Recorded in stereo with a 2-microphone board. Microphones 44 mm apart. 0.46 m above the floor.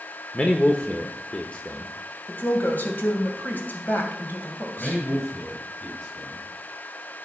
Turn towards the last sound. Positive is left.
turn(degrees=35)  # may be behind; listen again after turning